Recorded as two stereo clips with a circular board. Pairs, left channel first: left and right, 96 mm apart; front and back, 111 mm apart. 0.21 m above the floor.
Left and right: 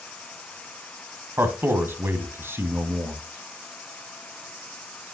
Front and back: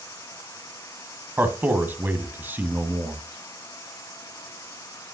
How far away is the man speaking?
About 1.3 m.